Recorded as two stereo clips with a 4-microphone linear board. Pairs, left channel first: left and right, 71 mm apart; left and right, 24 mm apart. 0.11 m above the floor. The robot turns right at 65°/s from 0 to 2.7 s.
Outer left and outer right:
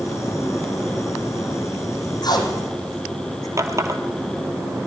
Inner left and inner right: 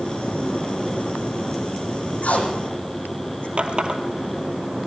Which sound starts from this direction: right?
A running tap, at 3.6 s.